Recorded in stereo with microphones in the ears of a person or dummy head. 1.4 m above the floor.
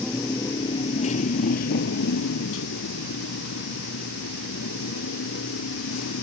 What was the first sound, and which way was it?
A motorcycle, 10° left (ahead or behind).